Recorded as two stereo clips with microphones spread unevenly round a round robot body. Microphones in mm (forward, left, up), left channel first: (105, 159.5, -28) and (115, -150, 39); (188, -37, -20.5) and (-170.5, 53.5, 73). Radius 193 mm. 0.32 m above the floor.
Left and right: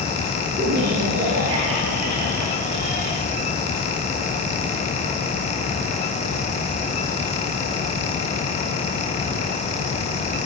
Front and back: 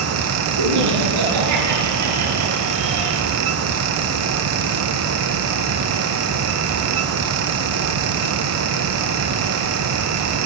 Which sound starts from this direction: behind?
Laughter, at 0.6 s.